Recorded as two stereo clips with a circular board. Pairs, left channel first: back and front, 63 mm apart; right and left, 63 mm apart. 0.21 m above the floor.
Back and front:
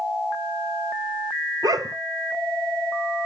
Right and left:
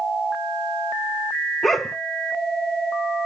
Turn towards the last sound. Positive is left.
turn(degrees=0)